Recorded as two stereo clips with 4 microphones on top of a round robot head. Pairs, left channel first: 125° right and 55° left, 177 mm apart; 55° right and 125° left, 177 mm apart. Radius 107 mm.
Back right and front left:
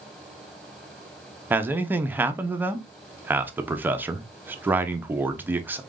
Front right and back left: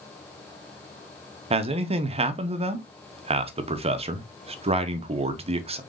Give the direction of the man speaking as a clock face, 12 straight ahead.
8 o'clock.